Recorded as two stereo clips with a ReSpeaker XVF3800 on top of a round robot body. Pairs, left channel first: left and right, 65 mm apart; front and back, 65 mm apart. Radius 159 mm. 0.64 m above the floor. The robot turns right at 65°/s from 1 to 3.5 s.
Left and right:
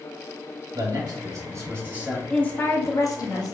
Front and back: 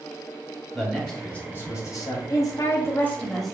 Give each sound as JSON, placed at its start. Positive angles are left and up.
{"t": 0.7, "sound": "a man speaking", "azimuth_deg": -90, "distance_m": 2.0}
{"t": 2.3, "sound": "a woman speaking", "azimuth_deg": 15, "distance_m": 1.3}